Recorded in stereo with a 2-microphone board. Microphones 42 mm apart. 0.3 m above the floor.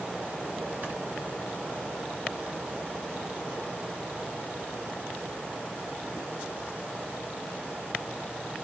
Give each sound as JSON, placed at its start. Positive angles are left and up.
{"t": 0.8, "sound": "snoring", "side_deg": -30, "distance_m": 2.5}